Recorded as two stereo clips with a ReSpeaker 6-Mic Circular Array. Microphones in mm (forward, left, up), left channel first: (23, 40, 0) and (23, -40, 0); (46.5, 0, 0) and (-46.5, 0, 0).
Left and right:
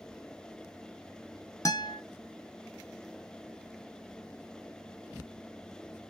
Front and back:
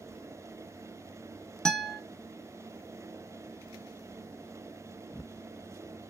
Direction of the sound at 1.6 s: 80° left.